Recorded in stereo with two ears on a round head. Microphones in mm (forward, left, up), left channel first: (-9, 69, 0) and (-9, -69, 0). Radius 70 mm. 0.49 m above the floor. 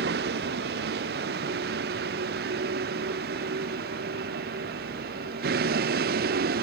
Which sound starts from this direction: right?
A vehicle, at 0.0 s.